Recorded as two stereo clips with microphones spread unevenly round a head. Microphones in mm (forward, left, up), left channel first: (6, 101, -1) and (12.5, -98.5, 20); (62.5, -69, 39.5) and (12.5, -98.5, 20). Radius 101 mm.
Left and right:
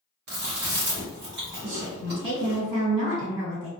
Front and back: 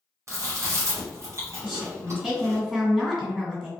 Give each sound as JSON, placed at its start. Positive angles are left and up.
{"t": 0.3, "sound": "chewing", "azimuth_deg": -110, "distance_m": 1.1}
{"t": 1.6, "sound": "a woman speaking", "azimuth_deg": -65, "distance_m": 1.5}